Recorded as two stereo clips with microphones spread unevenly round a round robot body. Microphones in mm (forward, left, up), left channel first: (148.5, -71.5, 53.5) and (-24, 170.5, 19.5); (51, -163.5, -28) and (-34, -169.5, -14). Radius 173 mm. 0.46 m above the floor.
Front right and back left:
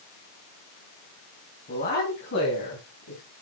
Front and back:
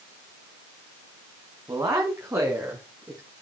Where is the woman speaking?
120° right, 3.5 m; by 3.2 s 105° right, 5 m.